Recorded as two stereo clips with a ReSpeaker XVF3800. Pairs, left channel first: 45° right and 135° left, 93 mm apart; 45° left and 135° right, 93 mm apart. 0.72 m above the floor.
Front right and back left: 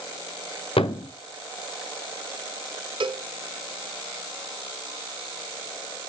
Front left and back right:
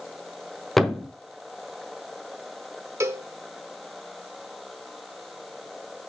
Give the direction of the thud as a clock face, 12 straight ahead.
1 o'clock.